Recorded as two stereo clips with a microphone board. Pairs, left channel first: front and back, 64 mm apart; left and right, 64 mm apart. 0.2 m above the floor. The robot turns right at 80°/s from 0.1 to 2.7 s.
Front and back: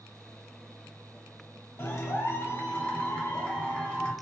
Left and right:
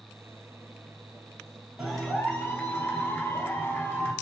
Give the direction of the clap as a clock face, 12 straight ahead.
12 o'clock.